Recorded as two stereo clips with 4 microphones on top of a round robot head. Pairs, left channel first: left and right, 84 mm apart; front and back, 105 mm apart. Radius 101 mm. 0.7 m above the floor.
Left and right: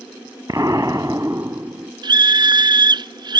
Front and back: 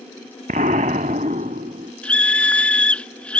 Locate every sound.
0.5 s an explosion: 160° right
2.0 s a scream: 80° right